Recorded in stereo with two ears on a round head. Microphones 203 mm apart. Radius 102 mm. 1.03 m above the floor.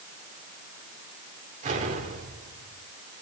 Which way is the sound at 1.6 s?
35° right (ahead or behind).